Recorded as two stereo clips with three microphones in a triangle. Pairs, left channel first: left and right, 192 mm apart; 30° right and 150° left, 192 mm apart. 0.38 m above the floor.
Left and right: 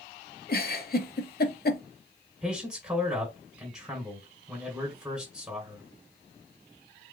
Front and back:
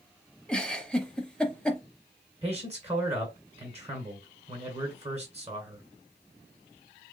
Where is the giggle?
55° left, 0.7 m.